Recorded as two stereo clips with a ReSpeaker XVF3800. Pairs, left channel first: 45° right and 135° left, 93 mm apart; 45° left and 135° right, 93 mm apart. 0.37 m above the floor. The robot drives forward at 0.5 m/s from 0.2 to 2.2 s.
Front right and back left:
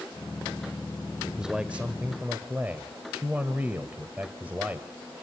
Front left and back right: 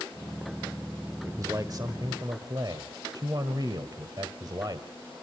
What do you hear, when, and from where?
1.2 s a man speaking: 145° right, 1.2 m; by 4.9 s 160° right, 1.4 m